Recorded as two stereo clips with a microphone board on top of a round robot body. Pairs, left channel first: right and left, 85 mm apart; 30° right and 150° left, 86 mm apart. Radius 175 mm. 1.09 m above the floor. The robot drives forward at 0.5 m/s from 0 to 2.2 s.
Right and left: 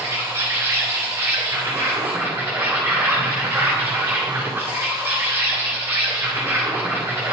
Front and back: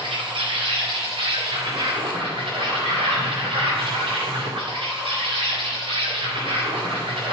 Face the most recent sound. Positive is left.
turn(degrees=155)